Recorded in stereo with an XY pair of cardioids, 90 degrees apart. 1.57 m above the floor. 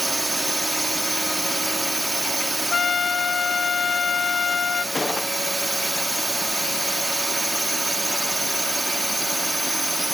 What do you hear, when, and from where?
0.0 s a drone: 15° right
2.7 s a trumpet: 45° left
5.0 s a gunshot: 25° left